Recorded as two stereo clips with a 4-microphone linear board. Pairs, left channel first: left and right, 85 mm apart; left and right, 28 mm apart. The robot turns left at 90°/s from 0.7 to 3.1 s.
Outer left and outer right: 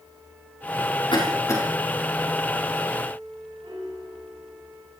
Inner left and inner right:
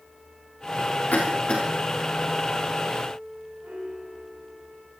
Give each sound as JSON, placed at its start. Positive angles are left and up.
{"t": 1.1, "sound": "a cough", "side_deg": 70, "distance_m": 5.5}
{"t": 3.6, "sound": "a piano", "side_deg": -75, "distance_m": 7.0}